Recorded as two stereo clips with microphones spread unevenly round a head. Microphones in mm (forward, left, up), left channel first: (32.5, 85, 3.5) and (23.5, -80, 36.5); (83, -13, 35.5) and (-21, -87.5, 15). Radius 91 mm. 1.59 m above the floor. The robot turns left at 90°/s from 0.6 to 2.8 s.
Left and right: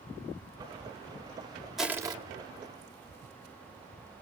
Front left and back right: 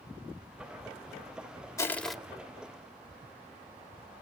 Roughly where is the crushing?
Ahead.